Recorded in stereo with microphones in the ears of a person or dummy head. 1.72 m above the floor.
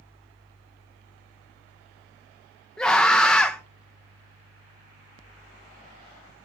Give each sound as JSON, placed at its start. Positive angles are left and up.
{"t": 2.8, "sound": "a scream", "side_deg": 5, "distance_m": 1.5}